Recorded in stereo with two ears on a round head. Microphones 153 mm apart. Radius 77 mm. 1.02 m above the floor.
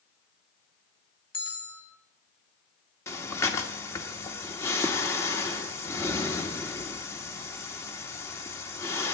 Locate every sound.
1.3 s a bell: 30° left (ahead or behind), 2.5 m
3.1 s breathing: 15° left (ahead or behind), 1.5 m